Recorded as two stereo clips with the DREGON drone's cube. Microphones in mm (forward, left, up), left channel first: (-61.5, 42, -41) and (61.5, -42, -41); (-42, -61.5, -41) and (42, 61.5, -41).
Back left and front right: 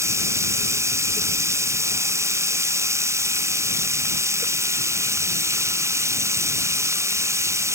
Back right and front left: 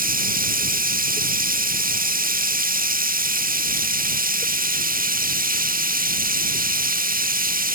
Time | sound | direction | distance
0.0 | running water | 35° left | ?